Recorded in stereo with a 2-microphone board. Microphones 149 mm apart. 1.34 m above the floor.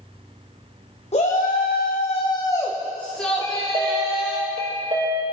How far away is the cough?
I don't hear a cough.